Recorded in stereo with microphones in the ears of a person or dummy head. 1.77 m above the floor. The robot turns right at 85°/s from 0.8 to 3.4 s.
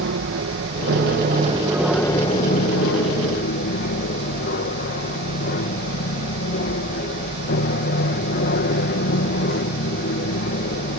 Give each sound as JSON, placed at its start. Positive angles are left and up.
{"t": 0.0, "sound": "an aircraft", "azimuth_deg": -95}